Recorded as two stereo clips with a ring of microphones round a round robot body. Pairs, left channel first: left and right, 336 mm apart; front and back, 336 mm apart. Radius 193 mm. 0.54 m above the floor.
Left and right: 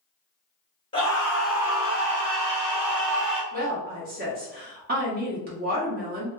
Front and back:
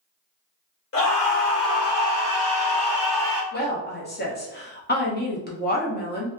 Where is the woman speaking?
45° right, 1.1 m.